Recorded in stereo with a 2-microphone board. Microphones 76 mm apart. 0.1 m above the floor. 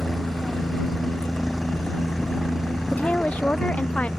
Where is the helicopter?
Centre (ahead or behind); by 4.2 s 5° right (ahead or behind).